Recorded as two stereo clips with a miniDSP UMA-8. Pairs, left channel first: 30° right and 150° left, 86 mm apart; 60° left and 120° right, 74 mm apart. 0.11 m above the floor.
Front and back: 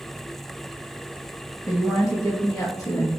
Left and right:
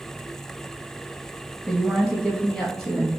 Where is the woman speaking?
25° right, 1.9 m.